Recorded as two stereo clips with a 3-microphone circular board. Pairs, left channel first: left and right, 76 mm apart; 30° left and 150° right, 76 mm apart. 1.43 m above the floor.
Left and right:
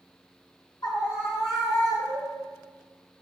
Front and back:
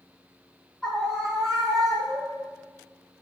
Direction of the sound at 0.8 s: 110° left.